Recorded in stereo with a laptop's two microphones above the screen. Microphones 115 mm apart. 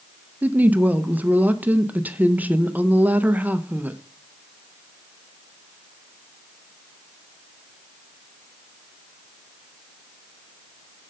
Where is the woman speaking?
15° right (ahead or behind), 0.6 m.